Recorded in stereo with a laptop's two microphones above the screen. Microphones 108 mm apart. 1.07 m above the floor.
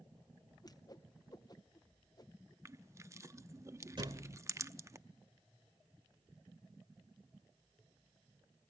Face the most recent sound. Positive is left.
turn(degrees=-45)  # may be behind; listen again after turning